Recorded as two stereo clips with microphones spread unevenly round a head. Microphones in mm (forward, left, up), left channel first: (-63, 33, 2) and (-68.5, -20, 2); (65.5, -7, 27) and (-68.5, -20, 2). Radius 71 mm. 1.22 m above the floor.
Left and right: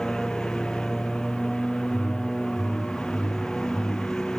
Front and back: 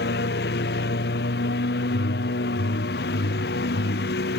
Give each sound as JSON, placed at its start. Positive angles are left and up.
{"t": 0.0, "sound": "a lawn mower", "azimuth_deg": 0}
{"t": 1.9, "sound": "a whoosh", "azimuth_deg": 25}